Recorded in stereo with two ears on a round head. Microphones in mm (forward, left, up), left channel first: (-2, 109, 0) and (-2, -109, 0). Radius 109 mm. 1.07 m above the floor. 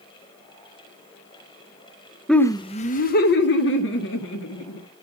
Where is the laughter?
Centre (ahead or behind), 0.5 m; by 4.8 s 65° left (ahead or behind), 1.8 m.